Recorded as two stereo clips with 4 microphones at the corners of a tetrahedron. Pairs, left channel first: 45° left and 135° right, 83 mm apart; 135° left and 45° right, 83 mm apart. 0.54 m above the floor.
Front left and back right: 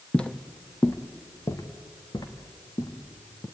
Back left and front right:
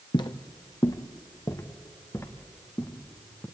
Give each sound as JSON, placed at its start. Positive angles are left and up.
{"t": 0.1, "sound": "footsteps", "azimuth_deg": 125, "distance_m": 1.2}